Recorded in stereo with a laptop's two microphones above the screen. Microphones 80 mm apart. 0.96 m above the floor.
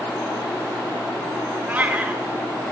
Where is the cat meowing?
20° right (ahead or behind), 0.6 m.